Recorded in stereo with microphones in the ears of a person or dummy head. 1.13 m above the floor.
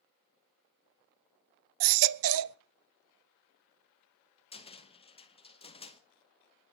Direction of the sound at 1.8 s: 75° right (ahead or behind).